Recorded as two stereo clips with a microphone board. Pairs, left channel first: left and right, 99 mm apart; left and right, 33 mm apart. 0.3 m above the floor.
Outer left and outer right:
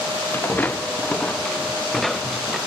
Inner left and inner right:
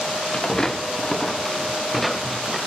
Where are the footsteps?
20° left (ahead or behind); by 2.6 s 5° right (ahead or behind).